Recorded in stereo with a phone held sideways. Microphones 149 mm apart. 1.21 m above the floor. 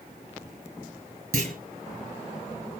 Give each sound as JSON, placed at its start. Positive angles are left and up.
{"t": 1.3, "sound": "a clunk", "side_deg": -75, "distance_m": 6.5}